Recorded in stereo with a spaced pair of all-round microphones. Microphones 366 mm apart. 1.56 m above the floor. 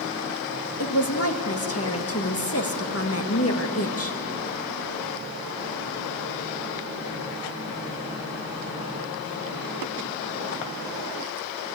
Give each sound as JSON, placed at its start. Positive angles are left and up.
{"t": 0.8, "sound": "a woman speaking", "side_deg": 40, "distance_m": 1.7}